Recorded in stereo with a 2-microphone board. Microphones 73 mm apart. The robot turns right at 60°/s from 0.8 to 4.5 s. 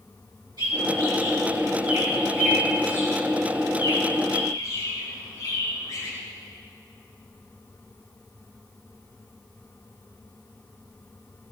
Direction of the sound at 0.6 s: 80° right.